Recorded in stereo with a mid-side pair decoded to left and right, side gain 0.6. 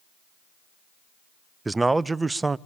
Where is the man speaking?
15° right, 0.6 m.